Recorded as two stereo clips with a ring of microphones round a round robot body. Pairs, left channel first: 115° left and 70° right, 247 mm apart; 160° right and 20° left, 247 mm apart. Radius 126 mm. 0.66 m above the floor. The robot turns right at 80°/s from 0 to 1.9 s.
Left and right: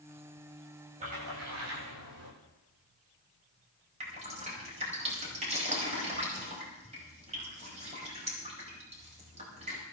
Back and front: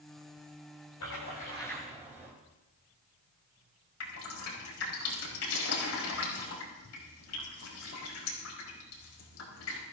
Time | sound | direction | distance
1.0 | a splash | 130° right | 8.5 m
4.0 | dripping | 130° right | 4.5 m